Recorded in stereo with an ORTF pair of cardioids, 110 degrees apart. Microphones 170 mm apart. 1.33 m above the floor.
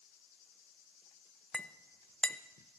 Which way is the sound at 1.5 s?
5° left.